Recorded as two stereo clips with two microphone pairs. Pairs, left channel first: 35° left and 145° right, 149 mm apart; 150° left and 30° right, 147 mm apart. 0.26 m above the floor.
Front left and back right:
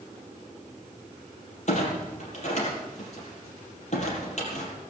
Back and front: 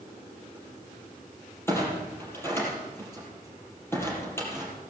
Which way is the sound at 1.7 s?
75° left.